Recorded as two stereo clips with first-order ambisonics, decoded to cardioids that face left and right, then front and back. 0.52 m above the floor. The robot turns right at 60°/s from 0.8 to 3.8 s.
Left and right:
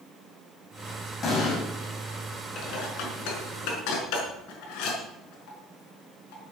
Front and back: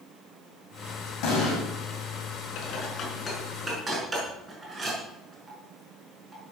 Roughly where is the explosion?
Ahead left.